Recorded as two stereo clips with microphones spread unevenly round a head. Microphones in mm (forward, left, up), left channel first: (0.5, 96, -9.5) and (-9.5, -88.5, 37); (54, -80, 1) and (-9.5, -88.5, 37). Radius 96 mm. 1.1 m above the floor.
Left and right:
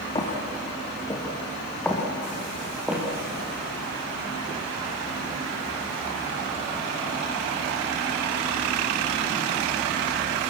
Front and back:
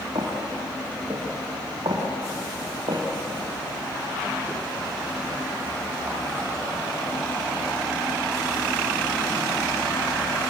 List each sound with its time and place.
0.1 s footsteps: 155° left, 4.5 m; by 3.0 s 175° right, 5 m